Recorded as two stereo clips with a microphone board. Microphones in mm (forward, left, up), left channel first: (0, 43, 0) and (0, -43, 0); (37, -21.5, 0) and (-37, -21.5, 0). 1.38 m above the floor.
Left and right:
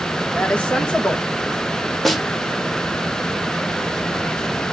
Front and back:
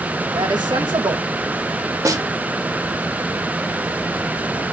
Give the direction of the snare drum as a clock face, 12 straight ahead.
6 o'clock.